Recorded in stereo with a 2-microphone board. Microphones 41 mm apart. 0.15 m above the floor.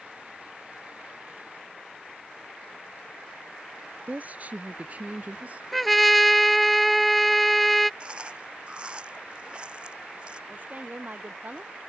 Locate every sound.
4.1 s a woman speaking: 45° right (ahead or behind); by 5.6 s 40° right (ahead or behind)
5.7 s a trumpet: centre (ahead or behind)
8.0 s chewing: 25° right (ahead or behind)
10.5 s a woman speaking: 45° right (ahead or behind)